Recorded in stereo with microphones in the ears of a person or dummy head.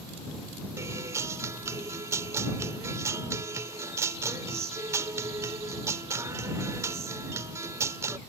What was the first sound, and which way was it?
A guitar, 15° right (ahead or behind).